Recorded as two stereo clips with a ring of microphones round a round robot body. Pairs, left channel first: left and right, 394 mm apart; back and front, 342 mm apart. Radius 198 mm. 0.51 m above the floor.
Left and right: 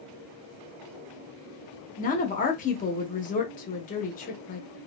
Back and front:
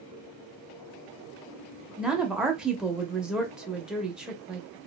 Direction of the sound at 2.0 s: 85° left.